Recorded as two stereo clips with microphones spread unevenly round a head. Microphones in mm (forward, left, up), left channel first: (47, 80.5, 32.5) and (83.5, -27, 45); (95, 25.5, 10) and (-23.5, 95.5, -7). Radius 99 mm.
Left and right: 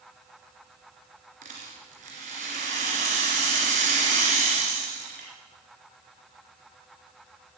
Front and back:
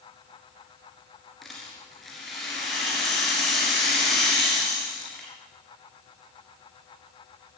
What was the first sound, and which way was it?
A rattle, 115° right.